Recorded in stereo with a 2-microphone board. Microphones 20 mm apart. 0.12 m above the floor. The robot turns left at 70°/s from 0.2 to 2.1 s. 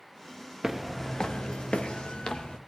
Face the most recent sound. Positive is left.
turn(degrees=55)  # may be behind; listen again after turning